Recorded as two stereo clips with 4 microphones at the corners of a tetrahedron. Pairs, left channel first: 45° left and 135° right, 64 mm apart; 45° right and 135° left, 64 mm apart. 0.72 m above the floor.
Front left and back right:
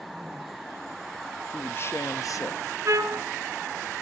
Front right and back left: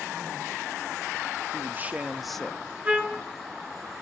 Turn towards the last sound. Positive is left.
turn(degrees=-170)